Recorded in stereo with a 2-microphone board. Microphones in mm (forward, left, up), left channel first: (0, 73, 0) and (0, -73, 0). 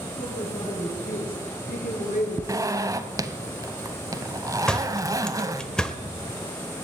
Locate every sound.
0.2 s a woman speaking: 70° left (ahead or behind), 6 m
2.5 s a zipper: 25° right (ahead or behind), 0.9 m
4.7 s a door slam: 5° left (ahead or behind), 1.1 m